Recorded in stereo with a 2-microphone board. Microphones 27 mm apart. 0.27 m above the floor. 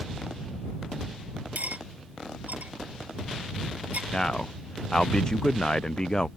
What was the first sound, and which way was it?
Cutlery clinking, 80° right.